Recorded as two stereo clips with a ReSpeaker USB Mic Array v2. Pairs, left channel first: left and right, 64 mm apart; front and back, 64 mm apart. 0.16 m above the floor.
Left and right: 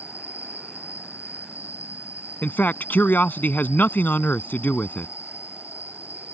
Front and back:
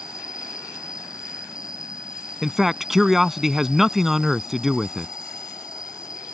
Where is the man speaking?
100° left.